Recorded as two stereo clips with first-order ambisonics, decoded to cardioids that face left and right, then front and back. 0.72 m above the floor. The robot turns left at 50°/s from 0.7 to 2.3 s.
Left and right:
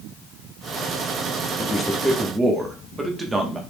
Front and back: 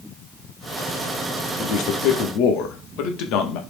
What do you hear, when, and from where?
1.6 s a man speaking: 20° left, 0.8 m; by 3.6 s 15° right, 0.8 m